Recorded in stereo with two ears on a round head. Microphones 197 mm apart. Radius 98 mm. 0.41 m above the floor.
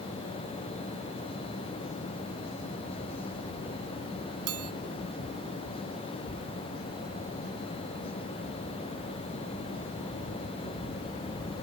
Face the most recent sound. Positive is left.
turn(degrees=-75)  # may be behind; listen again after turning